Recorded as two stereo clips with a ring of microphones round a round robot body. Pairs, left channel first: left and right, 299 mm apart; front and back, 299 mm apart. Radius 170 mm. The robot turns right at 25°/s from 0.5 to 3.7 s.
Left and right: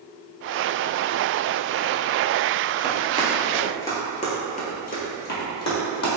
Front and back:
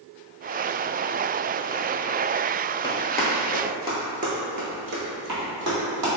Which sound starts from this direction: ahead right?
Running footsteps, at 2.8 s.